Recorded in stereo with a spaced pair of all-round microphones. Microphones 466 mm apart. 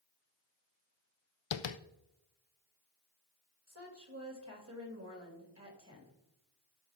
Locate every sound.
1.5 s tapping: 75° left (ahead or behind), 0.5 m
3.7 s a woman speaking: 30° right (ahead or behind), 2.5 m